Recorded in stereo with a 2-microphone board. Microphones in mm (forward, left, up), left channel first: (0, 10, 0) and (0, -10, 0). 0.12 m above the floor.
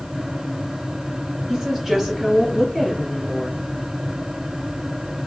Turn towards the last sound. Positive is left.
turn(degrees=-25)  # may be behind; listen again after turning